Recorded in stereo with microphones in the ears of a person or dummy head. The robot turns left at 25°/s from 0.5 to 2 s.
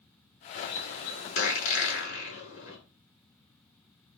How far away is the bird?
About 9.5 m.